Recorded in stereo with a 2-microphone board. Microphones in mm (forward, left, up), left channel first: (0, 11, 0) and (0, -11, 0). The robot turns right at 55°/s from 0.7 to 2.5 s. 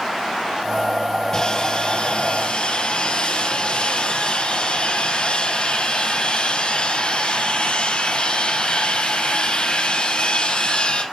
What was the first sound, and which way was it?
Sawing, 25° left.